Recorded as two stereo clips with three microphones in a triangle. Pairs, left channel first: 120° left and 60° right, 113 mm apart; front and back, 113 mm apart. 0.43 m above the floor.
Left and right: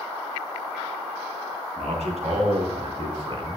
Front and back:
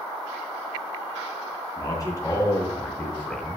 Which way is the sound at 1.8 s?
55° right.